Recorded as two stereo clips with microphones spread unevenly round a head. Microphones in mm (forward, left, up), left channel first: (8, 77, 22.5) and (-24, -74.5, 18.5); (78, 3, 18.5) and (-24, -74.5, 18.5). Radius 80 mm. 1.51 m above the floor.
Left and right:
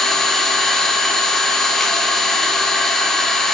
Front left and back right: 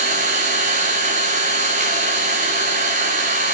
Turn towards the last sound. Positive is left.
turn(degrees=165)